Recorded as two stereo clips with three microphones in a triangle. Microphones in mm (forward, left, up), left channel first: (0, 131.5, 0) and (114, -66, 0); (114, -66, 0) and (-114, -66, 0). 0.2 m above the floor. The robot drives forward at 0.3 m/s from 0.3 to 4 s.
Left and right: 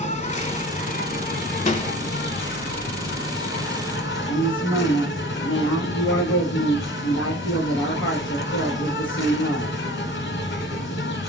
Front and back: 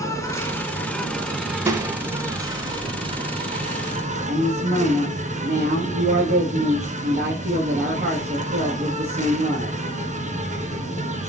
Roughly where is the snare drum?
Behind left.